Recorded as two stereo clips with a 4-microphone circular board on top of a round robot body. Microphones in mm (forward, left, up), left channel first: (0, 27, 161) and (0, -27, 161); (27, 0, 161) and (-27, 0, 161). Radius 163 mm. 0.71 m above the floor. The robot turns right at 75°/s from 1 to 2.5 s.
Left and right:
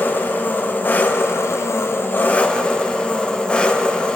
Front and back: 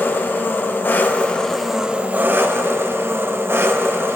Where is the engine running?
45° left, 0.8 m; by 4.2 s 155° left, 0.8 m.